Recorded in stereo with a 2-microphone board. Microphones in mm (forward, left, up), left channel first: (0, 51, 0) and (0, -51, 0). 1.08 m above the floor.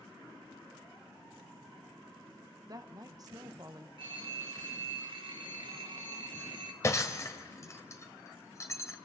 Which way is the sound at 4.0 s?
60° right (ahead or behind).